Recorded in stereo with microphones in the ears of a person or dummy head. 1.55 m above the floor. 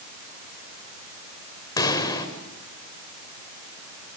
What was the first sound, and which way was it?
A pop, 20° left (ahead or behind).